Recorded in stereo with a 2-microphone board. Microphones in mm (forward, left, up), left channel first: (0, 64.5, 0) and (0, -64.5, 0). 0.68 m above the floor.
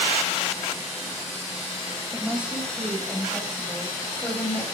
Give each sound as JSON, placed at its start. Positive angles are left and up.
{"t": 2.1, "sound": "a woman speaking", "side_deg": -15, "distance_m": 3.5}